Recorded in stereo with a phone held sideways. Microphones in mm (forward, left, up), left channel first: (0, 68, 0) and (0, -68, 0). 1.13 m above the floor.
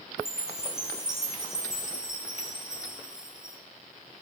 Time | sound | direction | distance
0.2 | a chime | 5° right (ahead or behind) | 0.9 m